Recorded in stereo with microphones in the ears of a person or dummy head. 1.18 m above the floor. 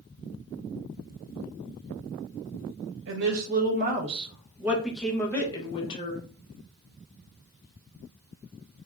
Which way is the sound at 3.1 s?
70° right (ahead or behind).